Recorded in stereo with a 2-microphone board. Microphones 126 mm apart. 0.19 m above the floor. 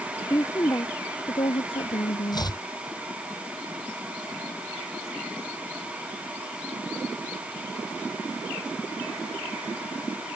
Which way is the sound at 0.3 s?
20° left (ahead or behind).